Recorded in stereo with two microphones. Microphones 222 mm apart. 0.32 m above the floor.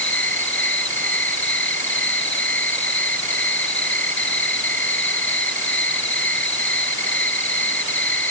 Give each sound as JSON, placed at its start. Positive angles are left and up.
{"t": 0.0, "sound": "an insect", "side_deg": 60}